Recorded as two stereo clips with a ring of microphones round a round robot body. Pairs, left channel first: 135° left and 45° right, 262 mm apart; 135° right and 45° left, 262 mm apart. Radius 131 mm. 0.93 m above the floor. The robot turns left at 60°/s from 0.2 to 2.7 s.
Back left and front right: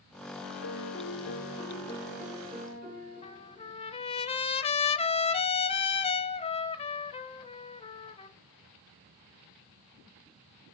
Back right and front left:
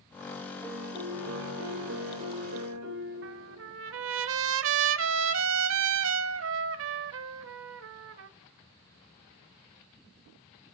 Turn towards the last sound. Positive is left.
turn(degrees=70)